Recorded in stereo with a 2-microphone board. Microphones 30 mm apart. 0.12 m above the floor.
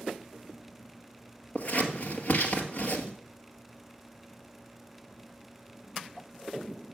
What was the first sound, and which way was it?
Scissors, 50° left (ahead or behind).